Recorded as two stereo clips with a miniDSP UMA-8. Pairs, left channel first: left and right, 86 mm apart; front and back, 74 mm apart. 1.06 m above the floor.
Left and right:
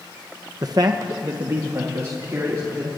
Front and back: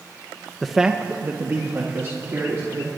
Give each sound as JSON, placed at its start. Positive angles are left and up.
{"t": 0.6, "sound": "a man speaking", "azimuth_deg": -80, "distance_m": 0.7}